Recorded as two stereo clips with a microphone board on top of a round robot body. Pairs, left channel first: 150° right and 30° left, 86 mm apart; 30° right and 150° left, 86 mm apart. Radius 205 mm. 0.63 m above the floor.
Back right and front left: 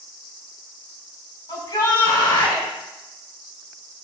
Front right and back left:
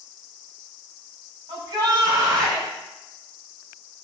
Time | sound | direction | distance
1.5 | a shout | straight behind | 3.5 m